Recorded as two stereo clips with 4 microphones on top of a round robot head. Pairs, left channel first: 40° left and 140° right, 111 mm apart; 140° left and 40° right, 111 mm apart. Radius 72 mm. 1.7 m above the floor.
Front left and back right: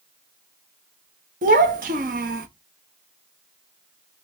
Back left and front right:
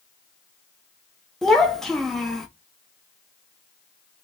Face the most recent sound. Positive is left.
turn(degrees=-135)